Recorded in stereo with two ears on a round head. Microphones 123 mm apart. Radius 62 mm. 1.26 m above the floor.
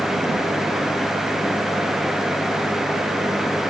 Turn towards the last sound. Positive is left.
No sound to turn to.